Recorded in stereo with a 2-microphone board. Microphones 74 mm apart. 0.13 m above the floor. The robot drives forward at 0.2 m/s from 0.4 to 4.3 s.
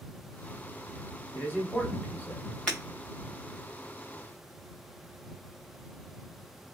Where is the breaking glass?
5° left (ahead or behind), 1.9 m.